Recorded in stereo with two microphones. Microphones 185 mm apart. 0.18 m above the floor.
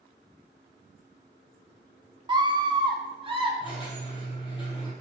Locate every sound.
2.3 s a scream: 25° right (ahead or behind), 1.1 m; by 3.5 s 30° right (ahead or behind), 1.6 m
3.6 s a squeak: 25° left (ahead or behind), 3 m